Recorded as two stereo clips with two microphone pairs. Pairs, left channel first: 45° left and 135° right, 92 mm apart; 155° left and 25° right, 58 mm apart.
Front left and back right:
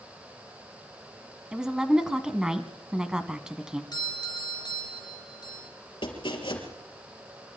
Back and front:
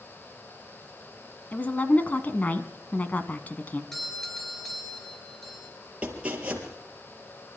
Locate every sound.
1.5 s a woman speaking: 150° left, 1.4 m
3.9 s a doorbell: 75° left, 3 m
6.0 s chopping: 40° left, 3.5 m